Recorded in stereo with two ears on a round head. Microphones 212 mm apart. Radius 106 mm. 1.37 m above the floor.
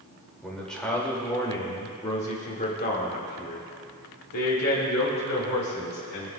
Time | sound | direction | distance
0.4 | a man speaking | centre (ahead or behind) | 2.5 m